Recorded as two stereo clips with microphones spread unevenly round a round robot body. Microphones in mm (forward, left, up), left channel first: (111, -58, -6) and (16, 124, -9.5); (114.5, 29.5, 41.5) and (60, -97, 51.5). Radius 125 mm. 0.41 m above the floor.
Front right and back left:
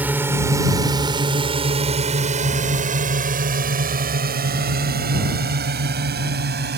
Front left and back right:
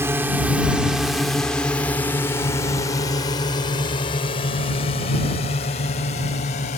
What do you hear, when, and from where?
0.0 s a drone: 175° right; by 6.8 s 90° left